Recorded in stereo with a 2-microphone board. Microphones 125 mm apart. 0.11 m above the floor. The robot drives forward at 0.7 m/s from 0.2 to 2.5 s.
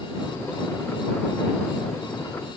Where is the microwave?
I don't hear a microwave.